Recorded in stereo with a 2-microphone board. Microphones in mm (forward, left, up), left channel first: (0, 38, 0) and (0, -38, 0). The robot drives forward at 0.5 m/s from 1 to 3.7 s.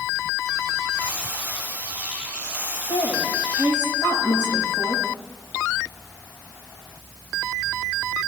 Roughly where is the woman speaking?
Left.